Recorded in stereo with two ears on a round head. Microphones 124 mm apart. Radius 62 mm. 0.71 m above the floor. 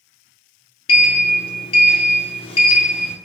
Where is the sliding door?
40° left (ahead or behind), 0.5 m.